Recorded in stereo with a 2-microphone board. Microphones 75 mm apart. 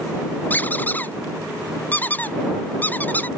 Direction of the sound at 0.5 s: 25° left (ahead or behind).